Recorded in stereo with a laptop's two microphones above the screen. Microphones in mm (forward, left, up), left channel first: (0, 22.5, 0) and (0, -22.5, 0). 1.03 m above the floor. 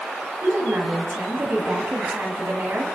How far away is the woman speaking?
About 7.5 m.